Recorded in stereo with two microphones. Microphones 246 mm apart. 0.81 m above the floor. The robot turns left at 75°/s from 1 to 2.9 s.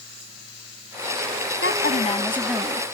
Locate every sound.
1.6 s a woman speaking: 60° left; by 2.9 s 30° right